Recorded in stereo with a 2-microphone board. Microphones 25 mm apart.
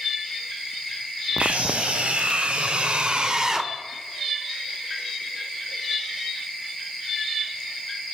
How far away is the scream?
About 3 m.